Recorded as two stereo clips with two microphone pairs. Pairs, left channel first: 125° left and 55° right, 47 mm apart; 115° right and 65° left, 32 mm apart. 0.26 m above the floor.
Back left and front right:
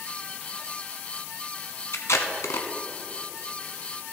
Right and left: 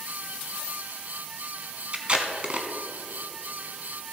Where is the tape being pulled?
115° left, 0.9 m.